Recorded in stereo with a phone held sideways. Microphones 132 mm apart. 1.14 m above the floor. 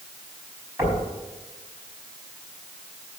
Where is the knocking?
20° right (ahead or behind), 5.5 m.